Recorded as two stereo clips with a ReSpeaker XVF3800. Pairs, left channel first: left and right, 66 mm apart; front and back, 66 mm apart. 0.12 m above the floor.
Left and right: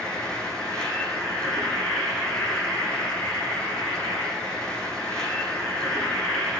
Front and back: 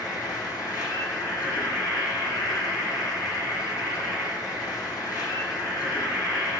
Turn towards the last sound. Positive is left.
turn(degrees=10)